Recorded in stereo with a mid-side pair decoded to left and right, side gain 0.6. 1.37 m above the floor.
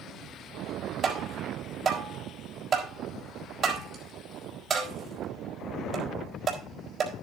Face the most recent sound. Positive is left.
turn(degrees=-35)